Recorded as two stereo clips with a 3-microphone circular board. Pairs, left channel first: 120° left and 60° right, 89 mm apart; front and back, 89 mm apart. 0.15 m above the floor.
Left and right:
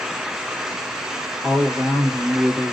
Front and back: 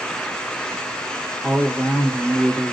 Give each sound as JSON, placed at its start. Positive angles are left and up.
{"t": 1.4, "sound": "a woman speaking", "azimuth_deg": -120, "distance_m": 1.6}